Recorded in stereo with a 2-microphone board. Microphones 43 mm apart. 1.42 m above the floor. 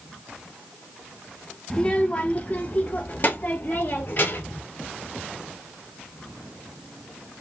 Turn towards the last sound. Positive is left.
turn(degrees=50)  # may be behind; listen again after turning